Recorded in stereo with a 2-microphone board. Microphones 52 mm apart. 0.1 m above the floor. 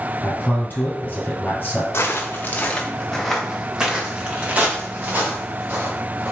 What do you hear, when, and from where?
0.2 s a man speaking: 35° left (ahead or behind), 2.0 m
1.9 s footsteps: 50° left (ahead or behind), 0.9 m; by 6.3 s 45° right (ahead or behind), 2 m